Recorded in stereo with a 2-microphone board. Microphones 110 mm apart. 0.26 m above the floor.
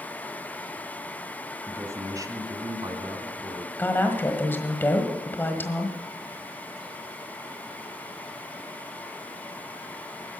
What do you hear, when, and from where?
1.7 s a man speaking: 25° right (ahead or behind), 1.3 m; by 3.7 s 55° right (ahead or behind), 2 m
3.8 s a woman speaking: 20° left (ahead or behind), 1.5 m